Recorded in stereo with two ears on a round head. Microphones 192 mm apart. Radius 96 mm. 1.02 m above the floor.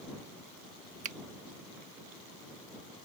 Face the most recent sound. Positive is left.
turn(degrees=-35)  # may be behind; listen again after turning